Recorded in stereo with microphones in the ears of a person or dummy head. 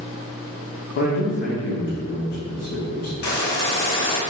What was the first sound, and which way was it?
A man speaking, 50° left (ahead or behind).